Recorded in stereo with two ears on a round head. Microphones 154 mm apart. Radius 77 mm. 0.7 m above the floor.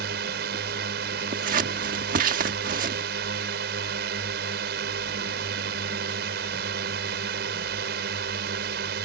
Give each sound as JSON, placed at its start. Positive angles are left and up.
{"t": 0.0, "sound": "a drone", "side_deg": -65}
{"t": 1.3, "sound": "scissors", "side_deg": -50}